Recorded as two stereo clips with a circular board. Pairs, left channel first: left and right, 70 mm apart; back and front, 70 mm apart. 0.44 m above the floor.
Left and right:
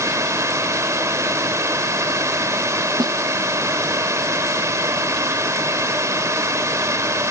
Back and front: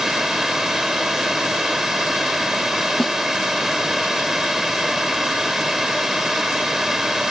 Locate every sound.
0.0 s a drone: 85° right
3.0 s a snare drum: 100° right